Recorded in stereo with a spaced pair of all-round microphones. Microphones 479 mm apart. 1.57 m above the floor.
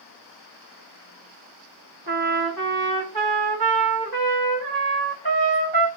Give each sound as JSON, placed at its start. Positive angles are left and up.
{"t": 2.1, "sound": "a trumpet", "side_deg": -50, "distance_m": 1.4}